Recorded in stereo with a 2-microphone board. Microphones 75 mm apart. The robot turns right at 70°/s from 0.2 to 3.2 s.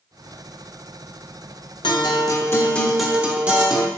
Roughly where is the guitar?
Left.